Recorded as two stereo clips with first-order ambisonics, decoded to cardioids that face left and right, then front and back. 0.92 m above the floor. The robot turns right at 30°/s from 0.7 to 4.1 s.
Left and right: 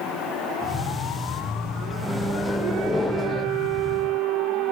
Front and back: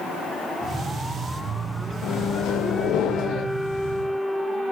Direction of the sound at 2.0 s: 10° right.